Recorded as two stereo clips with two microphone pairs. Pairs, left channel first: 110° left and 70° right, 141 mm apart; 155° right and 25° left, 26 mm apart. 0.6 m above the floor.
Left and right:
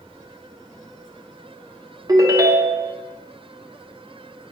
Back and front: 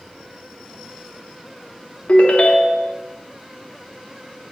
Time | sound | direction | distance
2.1 | a ringtone | 130° right | 0.9 m